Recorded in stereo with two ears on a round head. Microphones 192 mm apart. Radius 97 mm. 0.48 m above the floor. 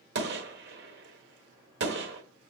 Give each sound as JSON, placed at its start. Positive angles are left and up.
{"t": 0.1, "sound": "a gunshot", "side_deg": -55, "distance_m": 1.2}